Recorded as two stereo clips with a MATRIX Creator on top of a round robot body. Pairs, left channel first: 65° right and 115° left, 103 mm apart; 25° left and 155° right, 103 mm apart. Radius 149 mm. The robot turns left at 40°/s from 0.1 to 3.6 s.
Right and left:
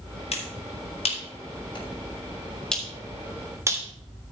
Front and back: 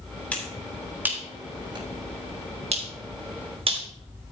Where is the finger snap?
55° right, 3.5 m; by 3.9 s 175° left, 3.5 m.